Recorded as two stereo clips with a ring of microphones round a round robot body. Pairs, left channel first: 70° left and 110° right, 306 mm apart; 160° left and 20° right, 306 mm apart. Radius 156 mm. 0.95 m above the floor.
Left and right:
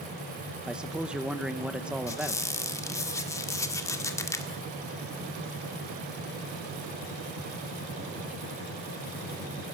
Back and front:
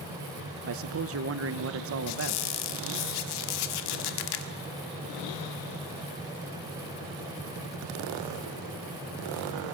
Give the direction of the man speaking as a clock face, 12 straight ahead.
1 o'clock.